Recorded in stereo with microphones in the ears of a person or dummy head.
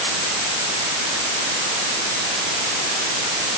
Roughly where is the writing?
No writing in this recording.